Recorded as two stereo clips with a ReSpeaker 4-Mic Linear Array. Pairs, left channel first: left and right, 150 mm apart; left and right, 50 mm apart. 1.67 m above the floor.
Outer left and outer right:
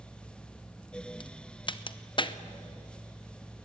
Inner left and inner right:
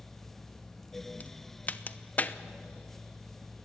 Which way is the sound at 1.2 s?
35° left (ahead or behind).